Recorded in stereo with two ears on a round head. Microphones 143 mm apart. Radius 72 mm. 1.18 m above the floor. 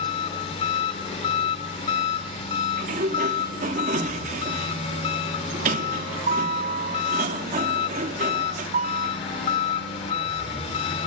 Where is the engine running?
40° left (ahead or behind), 2.5 m.